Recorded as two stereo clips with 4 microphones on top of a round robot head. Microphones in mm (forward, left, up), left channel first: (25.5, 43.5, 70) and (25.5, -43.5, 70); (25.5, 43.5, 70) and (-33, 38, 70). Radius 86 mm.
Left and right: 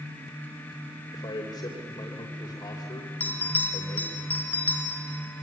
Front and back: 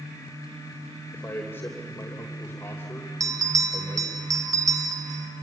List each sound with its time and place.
1.1 s a man speaking: 55° left, 3 m
3.2 s a bell: 160° left, 1.8 m